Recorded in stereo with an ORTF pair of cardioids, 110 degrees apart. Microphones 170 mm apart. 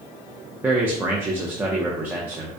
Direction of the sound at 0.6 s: 10° right.